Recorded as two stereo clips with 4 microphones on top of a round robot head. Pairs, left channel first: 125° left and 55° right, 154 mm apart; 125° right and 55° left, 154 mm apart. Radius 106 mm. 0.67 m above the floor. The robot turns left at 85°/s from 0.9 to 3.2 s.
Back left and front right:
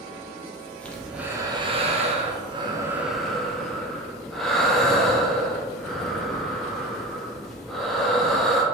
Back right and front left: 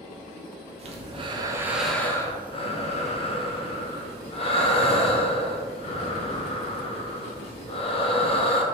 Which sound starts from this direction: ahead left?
Breathing, at 0.8 s.